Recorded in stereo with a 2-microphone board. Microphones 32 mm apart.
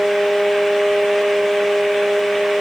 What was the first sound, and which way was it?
Only background noise.